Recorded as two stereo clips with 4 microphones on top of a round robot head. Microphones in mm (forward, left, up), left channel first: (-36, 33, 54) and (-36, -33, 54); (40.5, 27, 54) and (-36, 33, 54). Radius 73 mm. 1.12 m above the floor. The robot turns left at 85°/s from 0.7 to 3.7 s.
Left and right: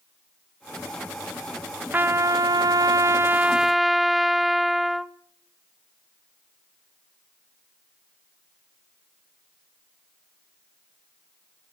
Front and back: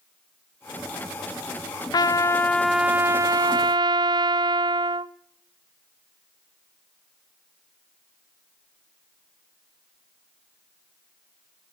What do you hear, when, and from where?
1.9 s a trumpet: 30° right, 0.8 m; by 5.1 s straight behind, 0.8 m